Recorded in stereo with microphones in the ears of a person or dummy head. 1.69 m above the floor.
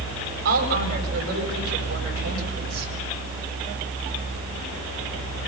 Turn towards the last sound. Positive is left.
turn(degrees=-55)  # may be behind; listen again after turning